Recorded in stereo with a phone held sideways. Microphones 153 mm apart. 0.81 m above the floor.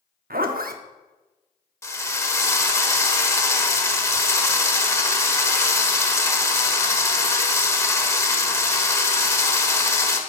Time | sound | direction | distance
0.3 | a zipper | 75° right (ahead or behind) | 0.7 m
1.8 | a drill | 20° left (ahead or behind) | 1.2 m